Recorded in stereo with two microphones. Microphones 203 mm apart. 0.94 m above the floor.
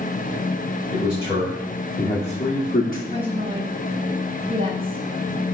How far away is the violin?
I don't hear a violin.